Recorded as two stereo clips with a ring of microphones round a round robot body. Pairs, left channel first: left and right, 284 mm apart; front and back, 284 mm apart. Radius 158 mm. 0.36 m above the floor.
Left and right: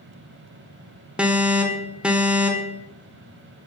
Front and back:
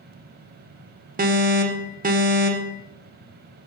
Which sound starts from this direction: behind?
An alarm, at 1.2 s.